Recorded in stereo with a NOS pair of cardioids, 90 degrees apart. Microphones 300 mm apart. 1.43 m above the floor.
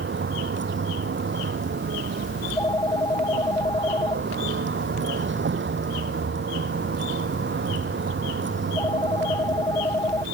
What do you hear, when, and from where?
0.0 s a vehicle: 40° right
2.4 s a phone ringing: 10° left